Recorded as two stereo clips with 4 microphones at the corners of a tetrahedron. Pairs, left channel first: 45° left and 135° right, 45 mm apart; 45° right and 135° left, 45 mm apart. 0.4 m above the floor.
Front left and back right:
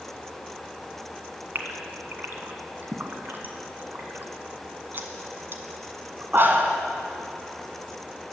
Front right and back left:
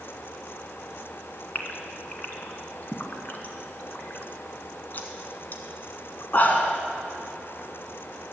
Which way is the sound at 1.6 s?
95° right.